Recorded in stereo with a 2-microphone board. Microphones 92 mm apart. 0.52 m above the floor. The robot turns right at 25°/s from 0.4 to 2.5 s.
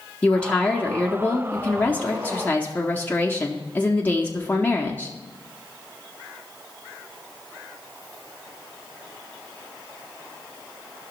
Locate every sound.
0.2 s a woman speaking: 15° left (ahead or behind), 0.7 m; by 5.1 s 20° left (ahead or behind), 0.7 m